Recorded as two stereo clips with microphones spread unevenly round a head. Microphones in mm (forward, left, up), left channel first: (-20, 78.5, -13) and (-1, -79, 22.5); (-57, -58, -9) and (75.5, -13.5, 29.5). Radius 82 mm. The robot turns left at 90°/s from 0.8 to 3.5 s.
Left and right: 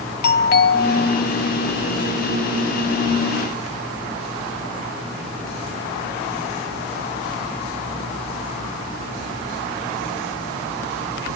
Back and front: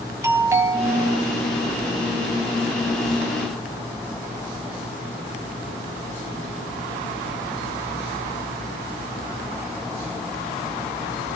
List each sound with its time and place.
0.2 s a doorbell: 95° left, 1.1 m; by 1.2 s 60° left, 1.1 m